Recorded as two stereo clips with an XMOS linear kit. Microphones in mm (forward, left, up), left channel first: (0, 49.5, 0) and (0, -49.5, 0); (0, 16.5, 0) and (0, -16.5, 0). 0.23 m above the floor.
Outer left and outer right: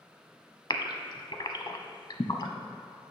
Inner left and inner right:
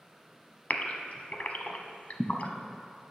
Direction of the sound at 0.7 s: 50° left (ahead or behind).